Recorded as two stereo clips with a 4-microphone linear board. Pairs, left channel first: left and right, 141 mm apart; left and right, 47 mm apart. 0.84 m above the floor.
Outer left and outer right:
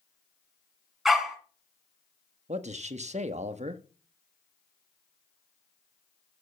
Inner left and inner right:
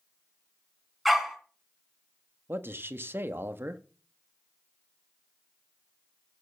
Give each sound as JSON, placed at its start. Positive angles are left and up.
{"t": 1.1, "sound": "a dog barking", "side_deg": 0, "distance_m": 3.0}
{"t": 2.5, "sound": "a man speaking", "side_deg": -55, "distance_m": 1.2}